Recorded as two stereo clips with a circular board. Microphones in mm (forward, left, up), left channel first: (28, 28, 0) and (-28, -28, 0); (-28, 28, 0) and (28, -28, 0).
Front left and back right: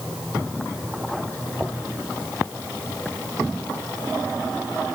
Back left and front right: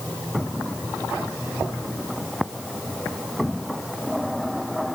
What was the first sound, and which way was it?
Only background noise.